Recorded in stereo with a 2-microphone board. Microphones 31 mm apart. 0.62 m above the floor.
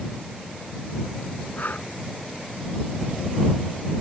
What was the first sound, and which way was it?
Breathing, 55° left (ahead or behind).